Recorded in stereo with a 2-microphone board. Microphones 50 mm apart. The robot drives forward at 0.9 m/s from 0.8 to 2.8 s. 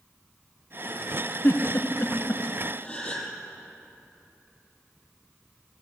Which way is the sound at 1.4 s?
50° left (ahead or behind).